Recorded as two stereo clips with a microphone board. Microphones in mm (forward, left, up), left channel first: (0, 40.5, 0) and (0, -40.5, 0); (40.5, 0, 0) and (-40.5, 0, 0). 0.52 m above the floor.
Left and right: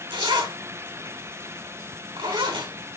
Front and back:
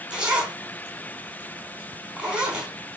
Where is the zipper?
100° right, 4 m.